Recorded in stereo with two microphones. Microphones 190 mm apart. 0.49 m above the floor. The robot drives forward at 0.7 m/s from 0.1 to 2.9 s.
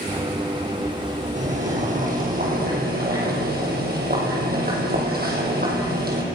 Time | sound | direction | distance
1.4 | boiling | 40° right (ahead or behind) | 4 m